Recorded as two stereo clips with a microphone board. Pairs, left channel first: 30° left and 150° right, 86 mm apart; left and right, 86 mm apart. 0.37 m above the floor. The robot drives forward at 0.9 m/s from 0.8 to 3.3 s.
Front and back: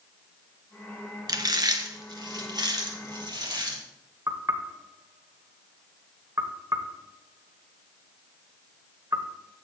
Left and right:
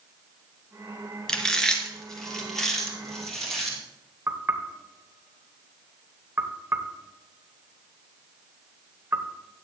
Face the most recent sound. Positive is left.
turn(degrees=-130)